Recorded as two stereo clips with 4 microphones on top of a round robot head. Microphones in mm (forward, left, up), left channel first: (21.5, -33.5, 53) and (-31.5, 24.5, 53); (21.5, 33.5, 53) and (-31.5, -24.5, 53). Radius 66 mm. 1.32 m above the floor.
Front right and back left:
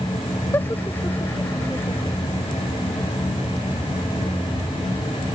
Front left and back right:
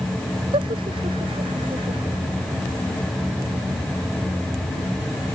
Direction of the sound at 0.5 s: 115° right.